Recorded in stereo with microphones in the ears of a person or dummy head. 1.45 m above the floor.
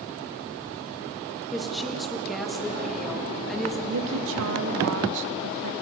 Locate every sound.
1.5 s a woman speaking: centre (ahead or behind), 1.7 m
3.9 s a woman speaking: 65° right (ahead or behind), 1.1 m